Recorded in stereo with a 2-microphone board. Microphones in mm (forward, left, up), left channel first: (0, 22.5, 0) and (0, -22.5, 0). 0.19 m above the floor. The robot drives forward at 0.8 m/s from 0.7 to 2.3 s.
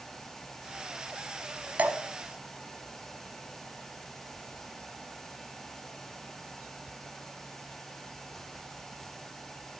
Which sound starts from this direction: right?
Dripping, at 1.8 s.